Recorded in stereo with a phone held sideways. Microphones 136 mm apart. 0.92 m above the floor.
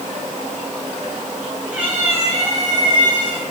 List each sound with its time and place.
1.7 s a cat meowing: 10° right (ahead or behind), 3.5 m; by 3.4 s 40° right (ahead or behind), 3.5 m